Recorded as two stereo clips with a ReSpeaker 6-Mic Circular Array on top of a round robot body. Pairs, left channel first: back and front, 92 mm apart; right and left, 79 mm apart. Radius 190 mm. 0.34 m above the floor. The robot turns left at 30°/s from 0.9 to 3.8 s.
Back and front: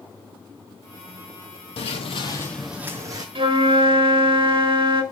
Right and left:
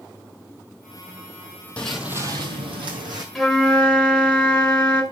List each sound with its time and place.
1.8 s footsteps: 165° right, 0.8 m; by 3.2 s 50° left, 1.2 m
3.4 s a flute: 5° right, 2 m; by 5.0 s 15° right, 2 m